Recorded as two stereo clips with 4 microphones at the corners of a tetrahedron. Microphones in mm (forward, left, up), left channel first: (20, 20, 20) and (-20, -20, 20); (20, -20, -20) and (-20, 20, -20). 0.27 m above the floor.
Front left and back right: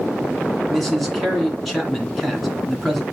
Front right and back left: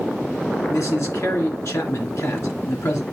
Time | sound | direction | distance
0.7 | a man speaking | 40° right | 3 m